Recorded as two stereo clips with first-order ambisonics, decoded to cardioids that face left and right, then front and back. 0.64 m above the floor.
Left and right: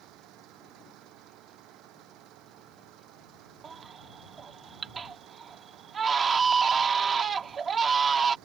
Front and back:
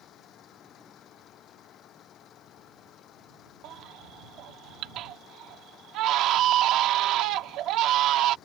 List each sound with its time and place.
0.0 s an engine running: 55° right
3.6 s a baby crying: 155° right